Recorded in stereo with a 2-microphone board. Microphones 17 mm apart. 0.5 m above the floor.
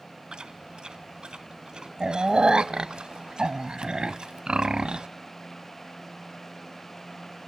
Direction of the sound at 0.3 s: 65° right (ahead or behind).